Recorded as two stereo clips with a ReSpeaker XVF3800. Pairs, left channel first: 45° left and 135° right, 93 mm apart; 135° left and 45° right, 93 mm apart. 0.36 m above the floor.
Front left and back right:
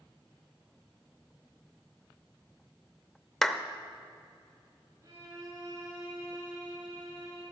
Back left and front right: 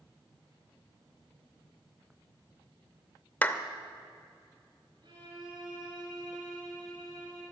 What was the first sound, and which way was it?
A clap, 125° left.